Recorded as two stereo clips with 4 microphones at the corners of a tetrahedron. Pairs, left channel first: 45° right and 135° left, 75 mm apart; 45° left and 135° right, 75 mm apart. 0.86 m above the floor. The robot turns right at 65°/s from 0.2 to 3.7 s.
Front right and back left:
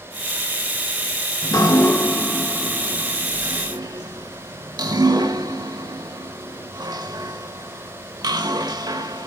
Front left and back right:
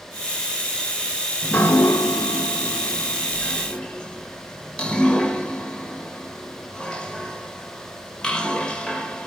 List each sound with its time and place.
1.4 s dripping: 25° right, 1.0 m; by 9.3 s 120° left, 1.0 m